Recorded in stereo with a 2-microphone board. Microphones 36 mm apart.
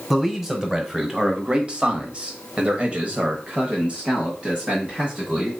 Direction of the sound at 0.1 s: 15° right (ahead or behind).